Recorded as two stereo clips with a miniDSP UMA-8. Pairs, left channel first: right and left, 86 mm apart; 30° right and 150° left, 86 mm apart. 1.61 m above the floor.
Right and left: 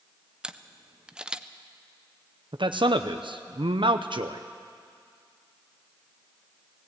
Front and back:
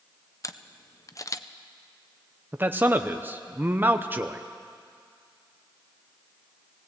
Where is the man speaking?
85° left, 0.7 m.